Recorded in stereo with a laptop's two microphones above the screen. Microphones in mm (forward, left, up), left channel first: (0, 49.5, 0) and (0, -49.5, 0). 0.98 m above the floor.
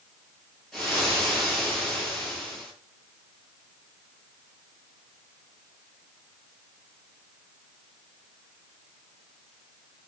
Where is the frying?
5° left (ahead or behind), 9.5 m.